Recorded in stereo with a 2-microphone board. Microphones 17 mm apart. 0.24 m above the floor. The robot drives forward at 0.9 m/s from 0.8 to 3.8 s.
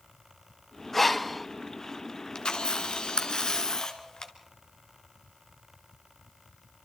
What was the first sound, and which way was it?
Breathing, 15° left (ahead or behind).